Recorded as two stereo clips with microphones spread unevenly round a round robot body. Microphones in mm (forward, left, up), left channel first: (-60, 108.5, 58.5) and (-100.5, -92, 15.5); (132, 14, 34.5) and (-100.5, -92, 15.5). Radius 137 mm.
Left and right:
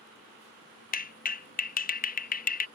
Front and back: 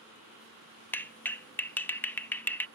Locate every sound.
0.9 s a clap: 110° left